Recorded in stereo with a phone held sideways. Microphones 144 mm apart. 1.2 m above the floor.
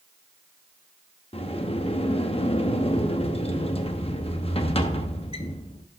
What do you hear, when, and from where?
1.3 s a sliding door: 45° left (ahead or behind), 0.7 m